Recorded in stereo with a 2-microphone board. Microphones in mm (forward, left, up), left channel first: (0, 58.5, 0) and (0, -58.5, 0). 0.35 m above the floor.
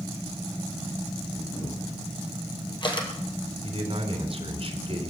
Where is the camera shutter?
40° left (ahead or behind), 3 m.